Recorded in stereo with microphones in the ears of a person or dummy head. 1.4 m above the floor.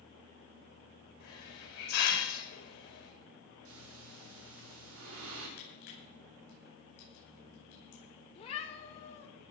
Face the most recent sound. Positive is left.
turn(degrees=30)  # may be behind; listen again after turning